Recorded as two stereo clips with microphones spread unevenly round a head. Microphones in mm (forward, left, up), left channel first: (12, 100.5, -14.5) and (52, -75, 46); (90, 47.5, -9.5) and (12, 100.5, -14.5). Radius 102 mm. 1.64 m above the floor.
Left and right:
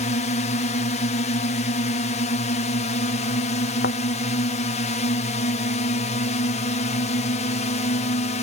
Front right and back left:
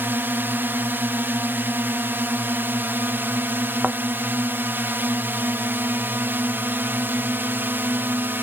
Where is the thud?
70° left.